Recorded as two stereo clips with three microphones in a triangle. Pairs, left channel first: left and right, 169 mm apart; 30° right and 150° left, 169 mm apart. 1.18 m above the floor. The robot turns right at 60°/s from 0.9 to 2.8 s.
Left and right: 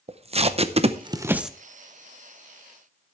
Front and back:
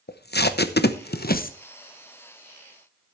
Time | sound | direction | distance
0.1 | tape being pulled | 35° right | 0.7 m